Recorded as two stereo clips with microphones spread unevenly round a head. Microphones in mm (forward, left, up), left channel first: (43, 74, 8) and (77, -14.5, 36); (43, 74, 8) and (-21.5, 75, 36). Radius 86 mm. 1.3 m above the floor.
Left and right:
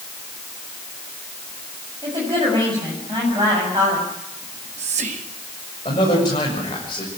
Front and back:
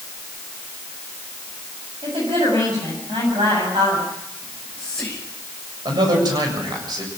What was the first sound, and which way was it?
A woman speaking, 135° right.